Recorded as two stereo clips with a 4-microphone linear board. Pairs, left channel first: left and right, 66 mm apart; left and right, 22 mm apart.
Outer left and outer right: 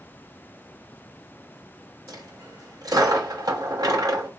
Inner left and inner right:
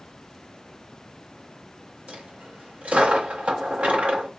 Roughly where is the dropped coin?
Right.